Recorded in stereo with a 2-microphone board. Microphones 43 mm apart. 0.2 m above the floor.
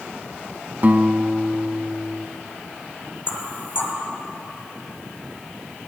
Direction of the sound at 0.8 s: 40° right (ahead or behind).